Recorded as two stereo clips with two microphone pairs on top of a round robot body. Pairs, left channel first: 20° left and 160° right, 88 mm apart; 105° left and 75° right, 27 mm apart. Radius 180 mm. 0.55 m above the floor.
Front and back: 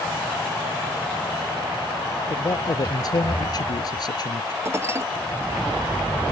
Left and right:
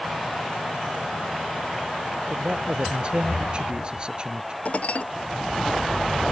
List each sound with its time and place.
2.3 s a man speaking: 25° right; by 4.5 s 15° right
4.7 s dishes clattering: 140° left